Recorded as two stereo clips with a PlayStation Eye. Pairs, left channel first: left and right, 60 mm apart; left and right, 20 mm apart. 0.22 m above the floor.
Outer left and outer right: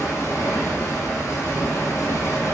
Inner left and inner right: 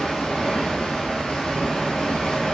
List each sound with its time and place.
0.0 s running water: 65° left (ahead or behind), 1.1 m